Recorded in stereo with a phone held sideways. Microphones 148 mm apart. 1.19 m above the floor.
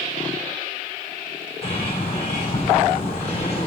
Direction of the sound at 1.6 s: 45° left (ahead or behind).